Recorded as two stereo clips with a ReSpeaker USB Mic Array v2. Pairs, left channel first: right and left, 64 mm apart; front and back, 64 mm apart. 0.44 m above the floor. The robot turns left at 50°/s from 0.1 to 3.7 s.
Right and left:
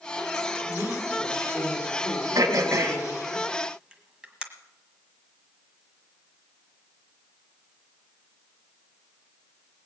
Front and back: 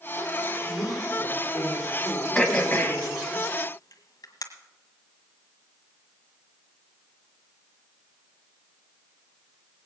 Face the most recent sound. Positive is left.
turn(degrees=15)